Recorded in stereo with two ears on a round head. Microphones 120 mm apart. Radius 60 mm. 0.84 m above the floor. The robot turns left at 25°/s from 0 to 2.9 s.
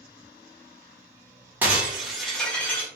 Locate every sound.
1.6 s breaking glass: 165° right, 1.2 m; by 2.9 s 165° left, 1.2 m